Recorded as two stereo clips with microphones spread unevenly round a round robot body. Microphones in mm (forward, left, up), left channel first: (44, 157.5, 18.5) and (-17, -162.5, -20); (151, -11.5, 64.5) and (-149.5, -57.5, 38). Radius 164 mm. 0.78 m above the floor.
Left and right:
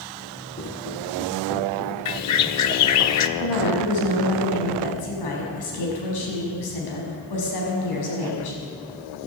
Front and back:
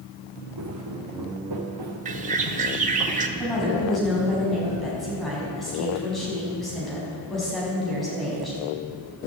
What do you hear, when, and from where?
0.6 s footsteps: 145° left, 2.5 m; by 3.0 s 170° left, 4 m
2.0 s a bird: 120° left, 0.7 m
3.4 s a woman speaking: 100° left, 5.5 m